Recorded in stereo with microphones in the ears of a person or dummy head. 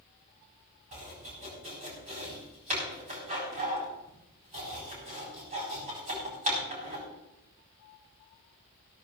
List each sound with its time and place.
0.9 s chopping: 35° right (ahead or behind), 4 m